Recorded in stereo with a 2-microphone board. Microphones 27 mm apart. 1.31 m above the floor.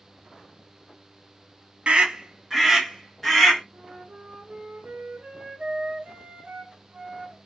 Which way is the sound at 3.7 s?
50° right (ahead or behind).